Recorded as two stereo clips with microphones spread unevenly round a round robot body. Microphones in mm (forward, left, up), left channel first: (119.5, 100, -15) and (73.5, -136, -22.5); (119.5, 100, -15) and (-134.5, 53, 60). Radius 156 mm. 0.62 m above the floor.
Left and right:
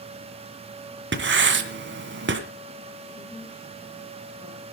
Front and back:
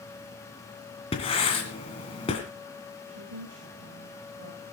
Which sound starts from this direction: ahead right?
Writing, at 1.1 s.